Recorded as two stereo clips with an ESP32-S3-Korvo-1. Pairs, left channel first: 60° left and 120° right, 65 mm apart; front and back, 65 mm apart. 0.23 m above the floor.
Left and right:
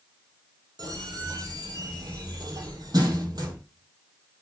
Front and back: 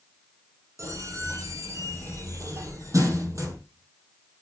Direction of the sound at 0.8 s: 140° right.